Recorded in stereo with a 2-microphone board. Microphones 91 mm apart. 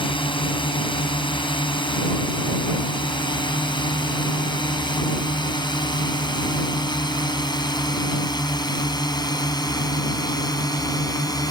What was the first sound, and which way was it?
A drone, 65° left (ahead or behind).